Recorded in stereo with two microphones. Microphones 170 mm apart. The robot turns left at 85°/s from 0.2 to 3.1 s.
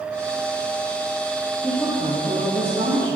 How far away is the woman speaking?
About 5.5 m.